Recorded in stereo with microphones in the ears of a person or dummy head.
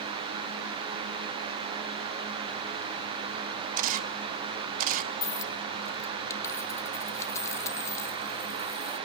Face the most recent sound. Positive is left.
turn(degrees=20)  # may be behind; listen again after turning